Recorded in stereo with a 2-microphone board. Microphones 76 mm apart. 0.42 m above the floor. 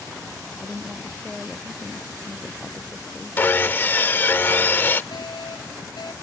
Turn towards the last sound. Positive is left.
turn(degrees=70)  # may be behind; listen again after turning